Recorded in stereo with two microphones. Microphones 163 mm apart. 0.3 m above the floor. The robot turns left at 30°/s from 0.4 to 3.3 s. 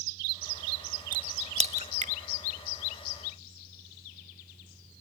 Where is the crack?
25° right (ahead or behind), 0.6 m; by 2.1 s 45° right (ahead or behind), 0.6 m.